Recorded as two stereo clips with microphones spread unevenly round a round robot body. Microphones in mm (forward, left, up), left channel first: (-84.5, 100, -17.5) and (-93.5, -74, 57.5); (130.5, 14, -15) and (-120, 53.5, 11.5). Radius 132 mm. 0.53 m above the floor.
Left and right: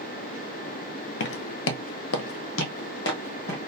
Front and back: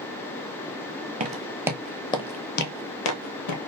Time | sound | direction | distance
1.2 | footsteps | 120° left | 0.8 m